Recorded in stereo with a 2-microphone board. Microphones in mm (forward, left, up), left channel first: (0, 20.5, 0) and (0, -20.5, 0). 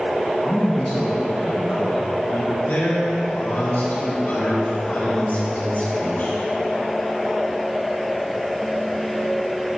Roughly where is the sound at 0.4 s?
Centre.